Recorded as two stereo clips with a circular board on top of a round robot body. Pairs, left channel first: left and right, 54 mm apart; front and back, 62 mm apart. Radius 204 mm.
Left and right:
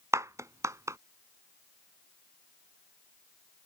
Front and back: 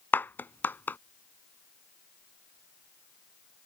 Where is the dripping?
No dripping in this recording.